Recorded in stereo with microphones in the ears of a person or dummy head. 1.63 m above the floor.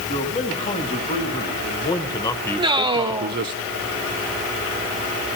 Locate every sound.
0.1 s a man speaking: 35° left (ahead or behind), 2.5 m; by 3.6 s 60° right (ahead or behind), 0.6 m
2.6 s a man speaking: 30° right (ahead or behind), 0.9 m